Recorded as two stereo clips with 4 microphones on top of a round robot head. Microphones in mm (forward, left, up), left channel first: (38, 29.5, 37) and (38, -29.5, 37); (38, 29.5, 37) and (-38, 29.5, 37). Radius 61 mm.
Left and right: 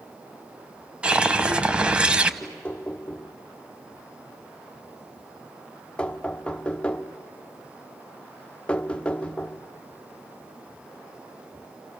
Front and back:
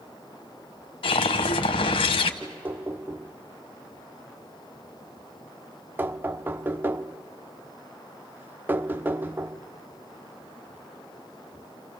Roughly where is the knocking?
Behind left.